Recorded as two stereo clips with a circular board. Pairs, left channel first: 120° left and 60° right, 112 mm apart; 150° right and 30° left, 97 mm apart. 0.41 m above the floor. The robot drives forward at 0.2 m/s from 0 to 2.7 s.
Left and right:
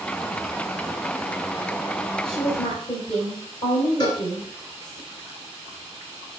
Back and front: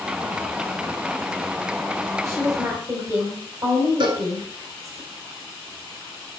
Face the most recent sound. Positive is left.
turn(degrees=70)